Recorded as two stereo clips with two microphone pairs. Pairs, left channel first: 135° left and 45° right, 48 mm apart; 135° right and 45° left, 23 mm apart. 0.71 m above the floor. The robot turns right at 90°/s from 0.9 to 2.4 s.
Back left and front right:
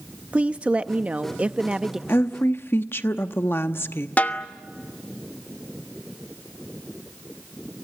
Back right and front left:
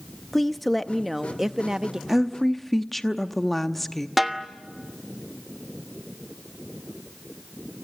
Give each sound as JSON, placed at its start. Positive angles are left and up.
{"t": 0.3, "sound": "a woman speaking", "azimuth_deg": -70, "distance_m": 0.5}
{"t": 2.1, "sound": "a woman speaking", "azimuth_deg": 120, "distance_m": 0.9}
{"t": 4.2, "sound": "a snare drum", "azimuth_deg": 130, "distance_m": 1.2}